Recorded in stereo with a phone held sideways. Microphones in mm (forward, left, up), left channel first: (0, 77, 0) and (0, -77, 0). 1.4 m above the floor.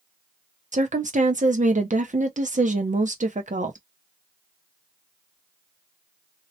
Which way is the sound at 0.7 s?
55° right (ahead or behind).